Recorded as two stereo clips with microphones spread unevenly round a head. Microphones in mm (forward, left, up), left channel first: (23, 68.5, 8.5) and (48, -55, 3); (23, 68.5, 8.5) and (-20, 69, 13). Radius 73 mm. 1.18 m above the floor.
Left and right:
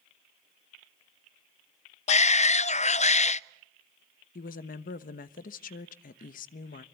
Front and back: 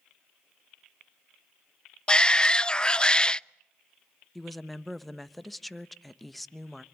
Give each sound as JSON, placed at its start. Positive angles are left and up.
{"t": 2.1, "sound": "a shout", "azimuth_deg": 70, "distance_m": 0.6}
{"t": 4.3, "sound": "a woman speaking", "azimuth_deg": 90, "distance_m": 1.0}